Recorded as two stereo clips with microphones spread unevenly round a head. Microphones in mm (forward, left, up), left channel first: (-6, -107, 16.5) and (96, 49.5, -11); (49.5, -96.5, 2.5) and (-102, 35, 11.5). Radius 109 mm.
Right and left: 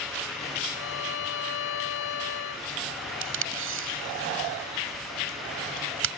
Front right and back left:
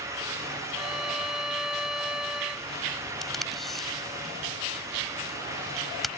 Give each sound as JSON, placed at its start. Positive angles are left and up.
{"t": 0.7, "sound": "a violin", "azimuth_deg": -135}
{"t": 3.2, "sound": "tape being pulled", "azimuth_deg": 50}